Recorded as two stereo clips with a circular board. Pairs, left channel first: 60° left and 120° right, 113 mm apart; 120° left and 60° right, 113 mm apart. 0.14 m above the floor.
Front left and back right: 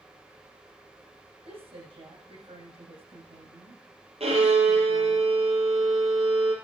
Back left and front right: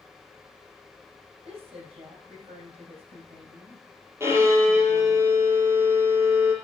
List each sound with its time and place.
1.4 s a woman speaking: 95° right, 7 m
4.2 s a violin: 125° right, 4 m